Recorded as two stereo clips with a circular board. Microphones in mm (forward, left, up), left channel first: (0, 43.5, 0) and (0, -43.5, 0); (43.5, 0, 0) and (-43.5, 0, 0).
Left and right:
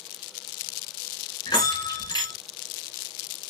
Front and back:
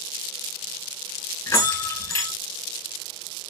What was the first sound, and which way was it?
A bell, 55° left.